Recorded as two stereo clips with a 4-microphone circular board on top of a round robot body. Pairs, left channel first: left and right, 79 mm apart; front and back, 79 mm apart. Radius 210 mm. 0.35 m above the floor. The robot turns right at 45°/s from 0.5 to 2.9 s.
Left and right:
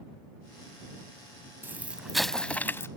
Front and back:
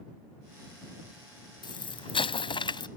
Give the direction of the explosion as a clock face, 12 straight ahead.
1 o'clock.